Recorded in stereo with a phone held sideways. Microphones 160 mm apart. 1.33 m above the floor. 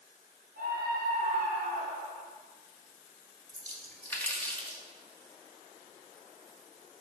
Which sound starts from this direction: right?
A scream, at 0.6 s.